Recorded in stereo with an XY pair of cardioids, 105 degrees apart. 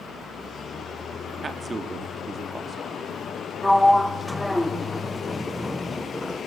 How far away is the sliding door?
About 1.3 m.